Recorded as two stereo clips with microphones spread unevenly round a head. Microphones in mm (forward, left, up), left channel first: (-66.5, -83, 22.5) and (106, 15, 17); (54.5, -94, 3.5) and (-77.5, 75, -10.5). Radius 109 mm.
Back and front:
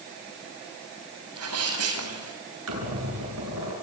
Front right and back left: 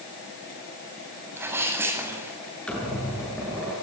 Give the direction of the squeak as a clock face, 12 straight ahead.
11 o'clock.